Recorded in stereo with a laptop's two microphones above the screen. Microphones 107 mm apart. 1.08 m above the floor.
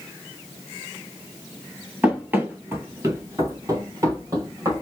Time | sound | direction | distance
2.0 | running footsteps | 15° right (ahead or behind) | 1.1 m